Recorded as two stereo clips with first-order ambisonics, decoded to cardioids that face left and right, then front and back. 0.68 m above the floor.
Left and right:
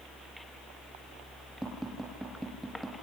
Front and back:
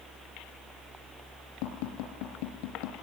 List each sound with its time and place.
1.6 s tapping: 5° right, 4 m